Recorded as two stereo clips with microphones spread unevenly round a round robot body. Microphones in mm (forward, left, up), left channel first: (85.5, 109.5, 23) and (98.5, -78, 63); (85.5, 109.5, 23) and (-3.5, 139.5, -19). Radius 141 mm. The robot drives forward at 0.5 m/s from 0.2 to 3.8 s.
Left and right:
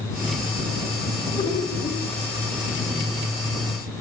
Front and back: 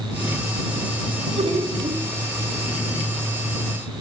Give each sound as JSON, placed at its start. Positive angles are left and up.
{"t": 1.4, "sound": "laughter", "azimuth_deg": 165, "distance_m": 4.5}